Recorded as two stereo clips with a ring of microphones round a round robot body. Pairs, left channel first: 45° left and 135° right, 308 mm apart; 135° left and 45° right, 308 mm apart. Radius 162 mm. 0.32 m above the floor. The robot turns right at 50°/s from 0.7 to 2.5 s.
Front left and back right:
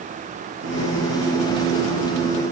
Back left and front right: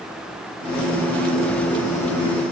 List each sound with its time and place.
Only background noise.